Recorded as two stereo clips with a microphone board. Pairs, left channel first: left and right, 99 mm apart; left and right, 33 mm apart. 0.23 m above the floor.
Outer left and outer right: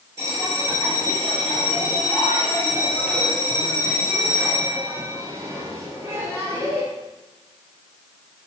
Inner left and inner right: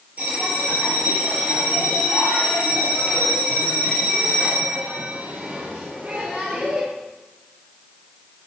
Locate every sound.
0.2 s a bell: 30° right (ahead or behind), 3.5 m